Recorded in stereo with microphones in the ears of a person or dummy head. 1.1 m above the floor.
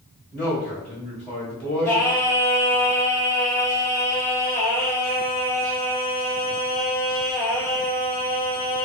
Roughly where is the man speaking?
Centre.